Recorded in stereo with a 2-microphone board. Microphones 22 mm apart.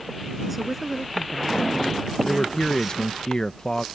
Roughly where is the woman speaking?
Centre.